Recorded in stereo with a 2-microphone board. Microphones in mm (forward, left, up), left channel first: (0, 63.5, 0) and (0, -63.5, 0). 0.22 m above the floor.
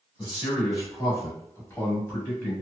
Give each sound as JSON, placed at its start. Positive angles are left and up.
{"t": 0.2, "sound": "a man speaking", "side_deg": 35, "distance_m": 1.6}